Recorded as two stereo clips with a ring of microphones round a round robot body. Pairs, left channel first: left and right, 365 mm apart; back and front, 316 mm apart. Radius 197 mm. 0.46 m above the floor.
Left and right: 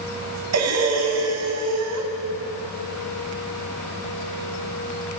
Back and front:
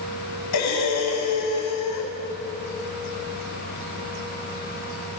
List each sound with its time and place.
0.5 s breathing: 135° right, 2.5 m